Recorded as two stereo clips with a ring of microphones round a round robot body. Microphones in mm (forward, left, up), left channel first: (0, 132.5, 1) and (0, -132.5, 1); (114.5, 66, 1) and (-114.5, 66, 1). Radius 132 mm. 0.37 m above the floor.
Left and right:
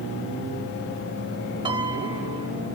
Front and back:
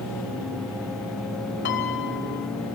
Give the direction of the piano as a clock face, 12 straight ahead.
1 o'clock.